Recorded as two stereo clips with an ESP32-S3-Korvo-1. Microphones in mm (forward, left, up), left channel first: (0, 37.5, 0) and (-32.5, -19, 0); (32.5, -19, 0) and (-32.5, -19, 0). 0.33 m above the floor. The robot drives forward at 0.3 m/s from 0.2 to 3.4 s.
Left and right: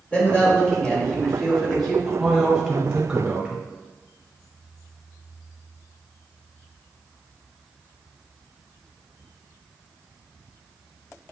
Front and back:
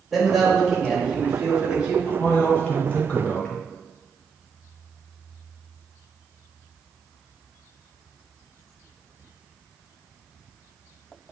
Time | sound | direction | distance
0.1 | a man speaking | 95° left | 1.5 m
2.1 | a man speaking | 40° right | 1.3 m